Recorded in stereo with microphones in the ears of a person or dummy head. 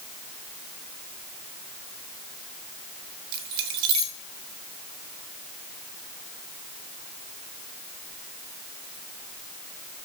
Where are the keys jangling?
25° right (ahead or behind), 0.6 m.